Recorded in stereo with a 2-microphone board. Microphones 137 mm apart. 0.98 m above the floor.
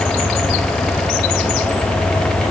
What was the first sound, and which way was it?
Only background noise.